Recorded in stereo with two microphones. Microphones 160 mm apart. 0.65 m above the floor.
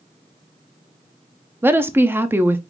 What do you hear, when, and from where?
1.6 s a woman speaking: 15° right (ahead or behind), 0.6 m